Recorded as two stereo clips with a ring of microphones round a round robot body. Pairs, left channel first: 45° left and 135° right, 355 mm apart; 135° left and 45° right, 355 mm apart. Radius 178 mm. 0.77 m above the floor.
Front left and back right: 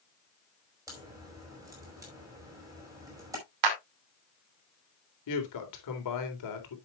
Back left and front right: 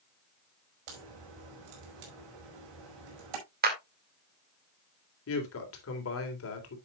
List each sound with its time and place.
0.9 s a crack: 55° right, 5 m
3.6 s a clap: 110° right, 2.5 m
5.3 s a woman speaking: 85° left, 3 m